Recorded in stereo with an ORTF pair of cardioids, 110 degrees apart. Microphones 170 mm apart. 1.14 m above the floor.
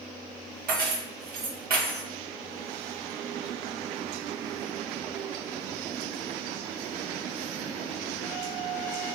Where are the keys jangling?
65° right, 1.1 m.